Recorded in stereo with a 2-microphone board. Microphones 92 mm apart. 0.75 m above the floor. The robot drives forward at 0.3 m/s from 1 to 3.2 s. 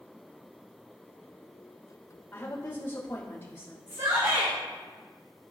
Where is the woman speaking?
25° left (ahead or behind), 3 m.